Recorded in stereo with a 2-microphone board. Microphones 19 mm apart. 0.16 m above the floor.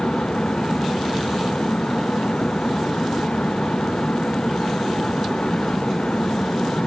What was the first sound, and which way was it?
Only background noise.